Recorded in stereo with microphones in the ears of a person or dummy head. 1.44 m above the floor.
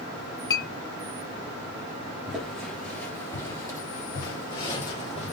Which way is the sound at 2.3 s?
Centre (ahead or behind).